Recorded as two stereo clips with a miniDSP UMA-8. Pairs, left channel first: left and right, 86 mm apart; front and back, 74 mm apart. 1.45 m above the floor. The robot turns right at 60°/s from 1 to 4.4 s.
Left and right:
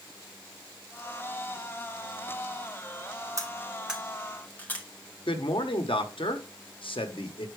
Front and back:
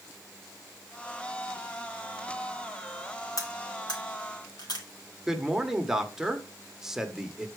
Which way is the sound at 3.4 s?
40° right.